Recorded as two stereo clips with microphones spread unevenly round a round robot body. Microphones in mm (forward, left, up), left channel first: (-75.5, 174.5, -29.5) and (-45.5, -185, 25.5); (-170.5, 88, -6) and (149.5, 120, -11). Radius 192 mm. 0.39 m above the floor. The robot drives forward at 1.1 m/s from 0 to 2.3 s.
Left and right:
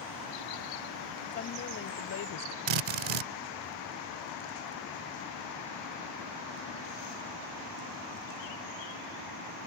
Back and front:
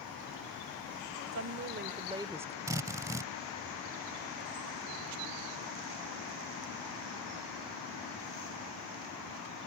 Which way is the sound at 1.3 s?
35° left.